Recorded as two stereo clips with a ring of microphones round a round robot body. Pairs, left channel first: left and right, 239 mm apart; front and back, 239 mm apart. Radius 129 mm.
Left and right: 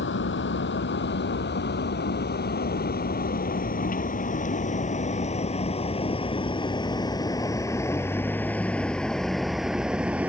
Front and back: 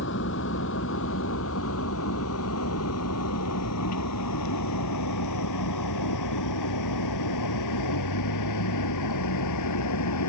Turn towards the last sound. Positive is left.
turn(degrees=-5)